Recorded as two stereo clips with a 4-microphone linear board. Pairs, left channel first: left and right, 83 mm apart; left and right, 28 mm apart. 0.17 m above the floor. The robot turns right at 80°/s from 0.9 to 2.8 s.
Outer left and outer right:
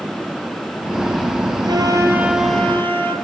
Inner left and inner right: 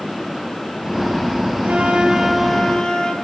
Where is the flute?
65° right, 3 m; by 3.1 s 25° left, 3 m.